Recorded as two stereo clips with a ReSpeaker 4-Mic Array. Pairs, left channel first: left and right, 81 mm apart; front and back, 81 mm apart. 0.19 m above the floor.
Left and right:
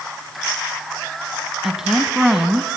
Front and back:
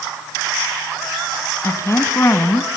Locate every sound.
1.6 s a woman speaking: 10° right, 1.4 m